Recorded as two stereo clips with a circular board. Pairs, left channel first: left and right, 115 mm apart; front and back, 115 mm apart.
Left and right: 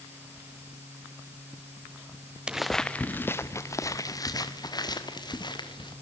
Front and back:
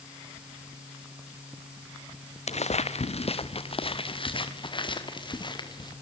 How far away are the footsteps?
About 1.0 m.